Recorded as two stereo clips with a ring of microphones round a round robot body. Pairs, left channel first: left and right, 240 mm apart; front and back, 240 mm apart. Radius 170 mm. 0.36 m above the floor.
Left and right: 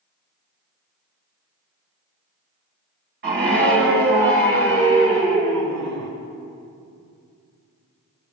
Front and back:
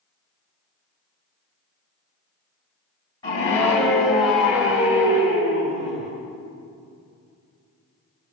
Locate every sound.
3.2 s a scream: 70° right, 2 m; by 6.1 s 115° right, 3 m